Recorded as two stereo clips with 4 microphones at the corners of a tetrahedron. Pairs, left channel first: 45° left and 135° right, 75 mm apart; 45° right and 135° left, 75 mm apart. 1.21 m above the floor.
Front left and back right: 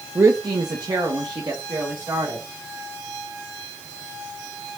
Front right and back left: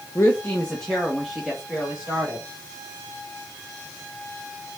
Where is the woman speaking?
85° right, 0.5 m; by 2.5 s 150° right, 2 m.